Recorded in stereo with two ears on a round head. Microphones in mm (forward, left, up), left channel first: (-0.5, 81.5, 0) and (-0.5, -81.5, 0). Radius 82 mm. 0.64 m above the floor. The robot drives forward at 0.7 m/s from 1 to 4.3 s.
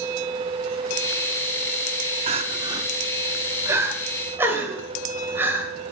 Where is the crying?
30° right (ahead or behind), 0.8 m; by 5.7 s 10° right (ahead or behind), 2 m.